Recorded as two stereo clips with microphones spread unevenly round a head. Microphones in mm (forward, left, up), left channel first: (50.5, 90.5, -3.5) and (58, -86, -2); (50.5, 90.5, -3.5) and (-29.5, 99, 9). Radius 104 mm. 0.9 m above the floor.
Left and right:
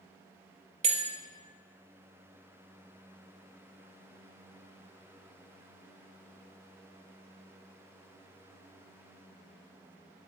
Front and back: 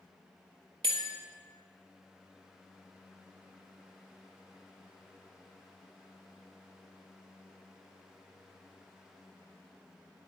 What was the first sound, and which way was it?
A bell, 150° right.